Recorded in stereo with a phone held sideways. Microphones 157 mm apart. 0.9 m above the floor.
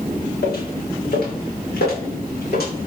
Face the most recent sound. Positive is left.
turn(degrees=80)